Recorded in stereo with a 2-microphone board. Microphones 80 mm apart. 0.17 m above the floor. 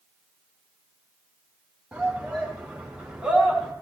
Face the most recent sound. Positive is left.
turn(degrees=-5)  # may be behind; listen again after turning